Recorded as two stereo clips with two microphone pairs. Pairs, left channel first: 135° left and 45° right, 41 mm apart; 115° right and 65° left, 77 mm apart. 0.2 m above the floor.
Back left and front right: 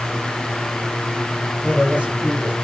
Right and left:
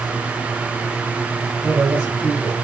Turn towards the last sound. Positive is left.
turn(degrees=5)